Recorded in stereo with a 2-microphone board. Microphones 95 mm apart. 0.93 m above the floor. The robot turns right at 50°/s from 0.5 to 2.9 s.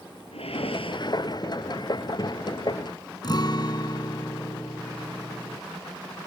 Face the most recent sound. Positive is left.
turn(degrees=45)  # may be behind; listen again after turning